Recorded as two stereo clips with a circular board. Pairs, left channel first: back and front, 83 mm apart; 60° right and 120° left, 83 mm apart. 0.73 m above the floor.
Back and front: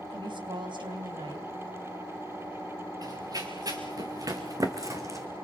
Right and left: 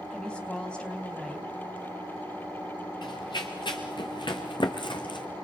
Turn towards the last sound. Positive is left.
turn(degrees=-50)